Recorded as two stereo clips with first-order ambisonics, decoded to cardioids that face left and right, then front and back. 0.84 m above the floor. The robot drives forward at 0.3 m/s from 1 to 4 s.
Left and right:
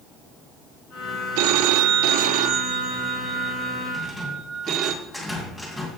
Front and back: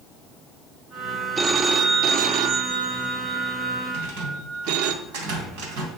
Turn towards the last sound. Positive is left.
turn(degrees=-175)